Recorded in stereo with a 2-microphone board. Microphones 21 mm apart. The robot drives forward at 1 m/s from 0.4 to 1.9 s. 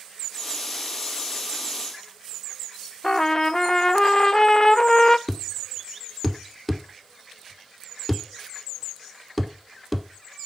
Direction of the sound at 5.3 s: Centre (ahead or behind).